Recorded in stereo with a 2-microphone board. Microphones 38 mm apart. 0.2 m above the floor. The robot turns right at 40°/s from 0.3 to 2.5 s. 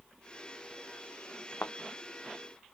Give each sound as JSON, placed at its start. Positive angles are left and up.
{"t": 1.6, "sound": "a thud", "side_deg": 85}